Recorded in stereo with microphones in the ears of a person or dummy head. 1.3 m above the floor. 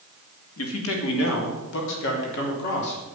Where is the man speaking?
80° left, 2.5 m; by 3.0 s 55° left (ahead or behind), 4 m.